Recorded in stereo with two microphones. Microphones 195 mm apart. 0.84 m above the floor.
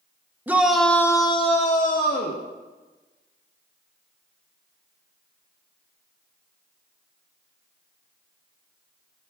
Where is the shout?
10° right (ahead or behind), 0.8 m; by 2.4 s 55° left (ahead or behind), 0.9 m.